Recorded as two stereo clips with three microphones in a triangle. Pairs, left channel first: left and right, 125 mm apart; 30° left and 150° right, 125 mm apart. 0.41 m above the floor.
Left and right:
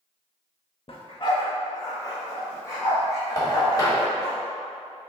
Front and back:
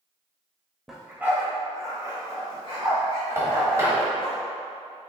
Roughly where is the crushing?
I don't hear crushing.